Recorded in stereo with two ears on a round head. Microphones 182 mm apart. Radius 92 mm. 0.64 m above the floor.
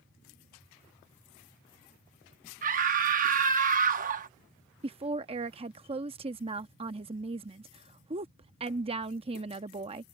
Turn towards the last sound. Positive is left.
turn(degrees=-30)  # may be behind; listen again after turning